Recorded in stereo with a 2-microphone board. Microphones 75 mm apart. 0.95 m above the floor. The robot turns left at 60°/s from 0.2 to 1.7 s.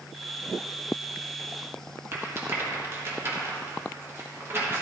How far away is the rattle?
About 1.3 m.